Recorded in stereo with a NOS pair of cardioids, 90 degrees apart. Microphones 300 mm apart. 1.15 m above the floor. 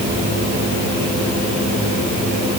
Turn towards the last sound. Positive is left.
No sound to turn to.